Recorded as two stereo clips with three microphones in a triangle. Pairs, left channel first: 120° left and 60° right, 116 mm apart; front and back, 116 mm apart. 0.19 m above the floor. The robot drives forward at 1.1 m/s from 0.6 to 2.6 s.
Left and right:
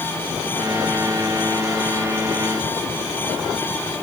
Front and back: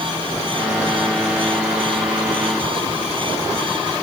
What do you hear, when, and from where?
Only background noise.